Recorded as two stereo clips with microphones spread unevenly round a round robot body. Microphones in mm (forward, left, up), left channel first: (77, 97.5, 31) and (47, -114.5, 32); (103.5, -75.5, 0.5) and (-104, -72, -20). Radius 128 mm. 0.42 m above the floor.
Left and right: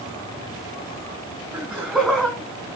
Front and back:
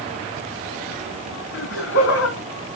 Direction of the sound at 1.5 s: 15° right.